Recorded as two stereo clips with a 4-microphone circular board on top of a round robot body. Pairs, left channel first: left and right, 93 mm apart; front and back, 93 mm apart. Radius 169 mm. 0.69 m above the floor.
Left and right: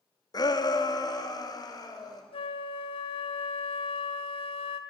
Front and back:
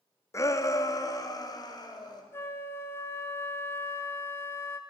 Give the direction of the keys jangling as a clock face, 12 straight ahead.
No keys jangling in this recording.